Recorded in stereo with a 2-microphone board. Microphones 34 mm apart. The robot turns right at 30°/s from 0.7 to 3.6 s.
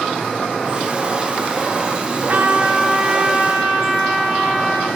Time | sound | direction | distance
2.3 | a trumpet | 50° right | 4 m